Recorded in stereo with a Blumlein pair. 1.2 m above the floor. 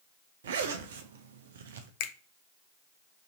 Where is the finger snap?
50° left, 0.5 m.